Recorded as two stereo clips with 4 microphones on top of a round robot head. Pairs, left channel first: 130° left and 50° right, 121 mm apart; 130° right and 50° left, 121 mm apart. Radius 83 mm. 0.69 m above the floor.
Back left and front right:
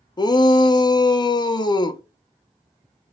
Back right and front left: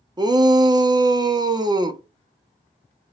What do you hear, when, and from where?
0.2 s a shout: 90° left, 1.1 m